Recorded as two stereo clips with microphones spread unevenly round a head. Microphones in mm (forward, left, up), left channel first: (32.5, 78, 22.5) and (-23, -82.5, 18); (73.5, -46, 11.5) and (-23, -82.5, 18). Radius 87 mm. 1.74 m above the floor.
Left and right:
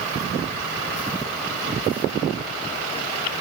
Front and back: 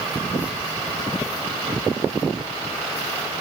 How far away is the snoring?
I don't hear snoring.